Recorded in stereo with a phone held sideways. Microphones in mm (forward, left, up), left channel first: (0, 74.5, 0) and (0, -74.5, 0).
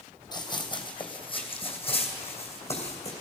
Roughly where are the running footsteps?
Left.